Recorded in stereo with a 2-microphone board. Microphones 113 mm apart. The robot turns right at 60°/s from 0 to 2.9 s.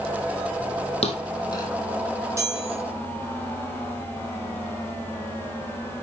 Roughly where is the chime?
Right.